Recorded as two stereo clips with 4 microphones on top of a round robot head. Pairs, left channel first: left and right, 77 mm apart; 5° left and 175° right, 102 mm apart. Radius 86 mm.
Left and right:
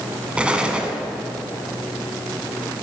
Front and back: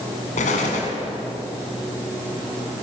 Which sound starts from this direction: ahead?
An explosion, at 0.4 s.